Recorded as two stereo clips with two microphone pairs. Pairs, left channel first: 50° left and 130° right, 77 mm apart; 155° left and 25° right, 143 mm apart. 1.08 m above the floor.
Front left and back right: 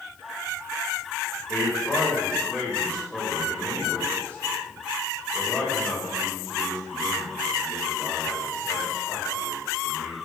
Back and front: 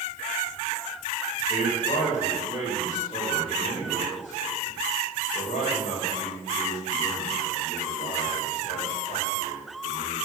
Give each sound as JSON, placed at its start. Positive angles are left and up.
{"t": 1.5, "sound": "a man speaking", "azimuth_deg": 125, "distance_m": 5.5}